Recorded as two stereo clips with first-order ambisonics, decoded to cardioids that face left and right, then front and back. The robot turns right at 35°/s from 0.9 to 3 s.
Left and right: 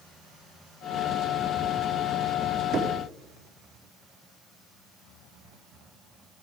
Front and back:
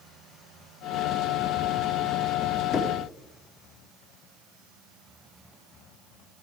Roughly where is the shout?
I don't hear a shout.